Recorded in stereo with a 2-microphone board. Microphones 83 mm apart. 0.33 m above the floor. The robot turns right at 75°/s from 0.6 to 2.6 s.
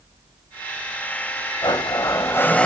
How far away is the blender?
About 0.7 m.